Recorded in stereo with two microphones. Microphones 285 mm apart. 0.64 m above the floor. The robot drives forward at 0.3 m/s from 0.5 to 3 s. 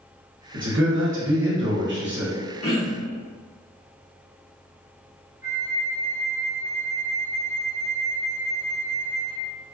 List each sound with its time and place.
0.5 s a man speaking: 45° right (ahead or behind), 0.9 m; by 2.3 s 40° right (ahead or behind), 1.0 m
2.6 s throat clearing: 50° left (ahead or behind), 1.2 m
5.4 s a flute: 10° right (ahead or behind), 0.6 m